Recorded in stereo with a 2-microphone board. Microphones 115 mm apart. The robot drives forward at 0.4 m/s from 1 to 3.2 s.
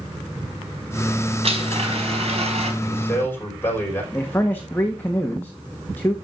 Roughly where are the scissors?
I don't hear scissors.